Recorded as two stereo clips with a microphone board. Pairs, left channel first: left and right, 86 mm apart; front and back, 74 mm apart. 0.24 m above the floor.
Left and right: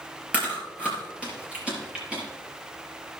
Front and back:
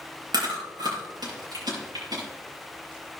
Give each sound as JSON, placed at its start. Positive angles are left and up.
{"t": 0.3, "sound": "chewing", "azimuth_deg": -165, "distance_m": 5.0}